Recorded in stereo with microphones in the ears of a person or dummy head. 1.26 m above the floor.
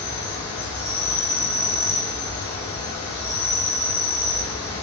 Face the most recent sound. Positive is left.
turn(degrees=15)  # may be behind; listen again after turning